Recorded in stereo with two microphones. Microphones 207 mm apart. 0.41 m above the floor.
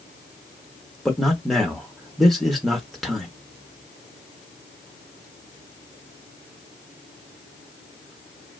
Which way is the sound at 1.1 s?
Centre (ahead or behind).